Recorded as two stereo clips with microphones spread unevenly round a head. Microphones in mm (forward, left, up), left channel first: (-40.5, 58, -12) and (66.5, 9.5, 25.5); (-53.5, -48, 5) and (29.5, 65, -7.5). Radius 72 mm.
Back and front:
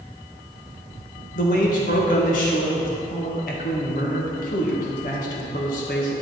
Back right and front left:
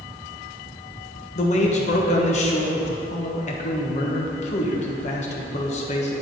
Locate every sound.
1.4 s a man speaking: 165° right, 1.4 m